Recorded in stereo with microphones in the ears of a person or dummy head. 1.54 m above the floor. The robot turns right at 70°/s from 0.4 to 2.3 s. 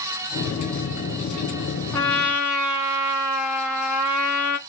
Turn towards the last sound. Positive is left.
turn(degrees=-5)  # may be behind; listen again after turning